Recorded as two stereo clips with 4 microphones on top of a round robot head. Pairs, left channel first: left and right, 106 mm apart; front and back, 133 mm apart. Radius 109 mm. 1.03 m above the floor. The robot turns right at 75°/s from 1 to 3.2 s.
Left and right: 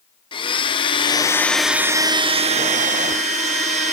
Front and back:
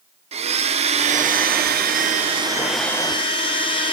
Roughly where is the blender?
Behind left.